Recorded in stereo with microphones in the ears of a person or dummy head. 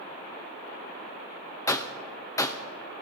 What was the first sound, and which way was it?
A gunshot, 15° left (ahead or behind).